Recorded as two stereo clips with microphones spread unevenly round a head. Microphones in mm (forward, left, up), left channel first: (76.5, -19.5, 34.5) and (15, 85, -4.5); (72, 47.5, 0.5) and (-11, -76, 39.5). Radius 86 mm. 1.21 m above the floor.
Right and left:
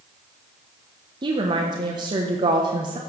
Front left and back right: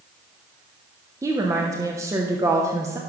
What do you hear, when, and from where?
1.2 s a woman speaking: 160° left, 1.0 m